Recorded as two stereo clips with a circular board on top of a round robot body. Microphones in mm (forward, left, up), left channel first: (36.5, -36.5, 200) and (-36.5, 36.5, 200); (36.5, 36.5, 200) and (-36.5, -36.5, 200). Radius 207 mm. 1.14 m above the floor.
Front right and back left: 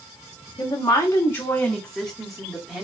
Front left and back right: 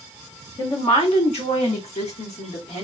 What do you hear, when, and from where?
0.6 s a woman speaking: 5° left, 1.0 m; by 2.8 s 50° left, 1.6 m